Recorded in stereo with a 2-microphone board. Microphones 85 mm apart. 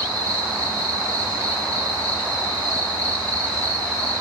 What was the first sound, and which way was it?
An insect, 45° left (ahead or behind).